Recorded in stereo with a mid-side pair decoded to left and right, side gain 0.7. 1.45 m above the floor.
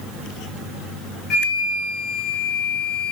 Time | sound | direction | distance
1.3 | a flute | 40° left | 4 m